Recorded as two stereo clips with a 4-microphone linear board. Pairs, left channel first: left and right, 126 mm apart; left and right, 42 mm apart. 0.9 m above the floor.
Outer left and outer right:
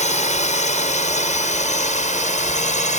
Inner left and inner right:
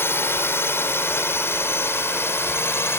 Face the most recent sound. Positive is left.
turn(degrees=70)  # may be behind; listen again after turning